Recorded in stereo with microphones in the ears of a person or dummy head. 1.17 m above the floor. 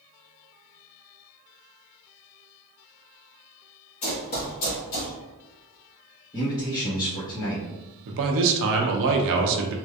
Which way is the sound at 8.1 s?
65° right (ahead or behind).